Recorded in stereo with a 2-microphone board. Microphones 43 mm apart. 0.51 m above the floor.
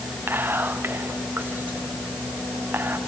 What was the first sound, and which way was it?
Whispering, 55° right (ahead or behind).